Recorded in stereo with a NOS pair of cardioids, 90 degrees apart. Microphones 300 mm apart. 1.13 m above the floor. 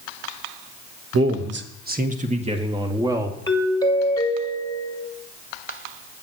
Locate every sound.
1.1 s a man speaking: 50° right, 1.2 m; by 3.4 s 10° right, 2.0 m
3.5 s a doorbell: 15° left, 1.8 m